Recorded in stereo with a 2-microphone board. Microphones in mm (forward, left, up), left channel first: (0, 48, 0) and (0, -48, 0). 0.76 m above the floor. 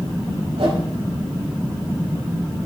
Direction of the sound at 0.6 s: 80° right.